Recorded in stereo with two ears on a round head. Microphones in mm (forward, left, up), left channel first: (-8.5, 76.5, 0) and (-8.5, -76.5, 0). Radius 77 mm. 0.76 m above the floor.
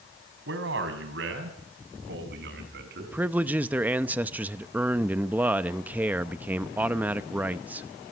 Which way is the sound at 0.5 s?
80° right.